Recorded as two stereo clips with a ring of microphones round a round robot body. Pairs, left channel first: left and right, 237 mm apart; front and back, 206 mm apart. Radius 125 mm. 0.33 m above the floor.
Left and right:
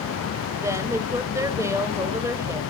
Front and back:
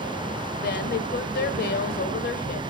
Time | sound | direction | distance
0.6 | a woman speaking | 15° right | 1.4 m